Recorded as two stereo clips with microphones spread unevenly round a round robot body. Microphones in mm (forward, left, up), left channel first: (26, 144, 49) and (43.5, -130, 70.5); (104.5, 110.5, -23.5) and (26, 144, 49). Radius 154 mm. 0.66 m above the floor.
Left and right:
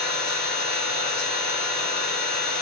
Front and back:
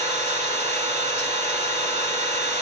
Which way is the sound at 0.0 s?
140° left.